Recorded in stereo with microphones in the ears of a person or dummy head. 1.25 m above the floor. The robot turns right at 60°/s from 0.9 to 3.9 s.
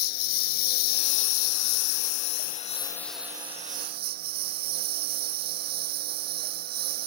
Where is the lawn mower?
45° left; by 7.1 s 135° right.